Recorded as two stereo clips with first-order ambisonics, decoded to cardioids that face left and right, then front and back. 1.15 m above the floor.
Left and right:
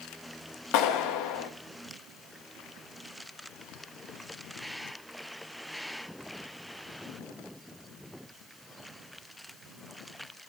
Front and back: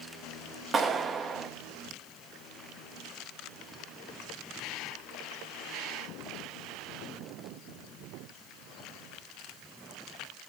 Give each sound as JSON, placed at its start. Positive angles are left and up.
{"t": 0.7, "sound": "a clap", "azimuth_deg": 110, "distance_m": 1.4}